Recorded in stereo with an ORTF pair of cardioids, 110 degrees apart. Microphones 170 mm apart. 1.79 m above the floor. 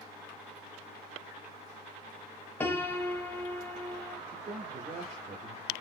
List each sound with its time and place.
2.6 s a piano: 15° left, 1.0 m
4.3 s a man speaking: 50° right, 3 m